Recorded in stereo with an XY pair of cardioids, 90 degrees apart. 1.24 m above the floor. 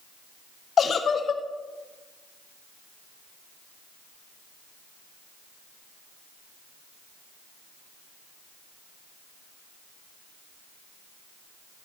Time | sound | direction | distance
0.8 | a giggle | 55° left | 0.7 m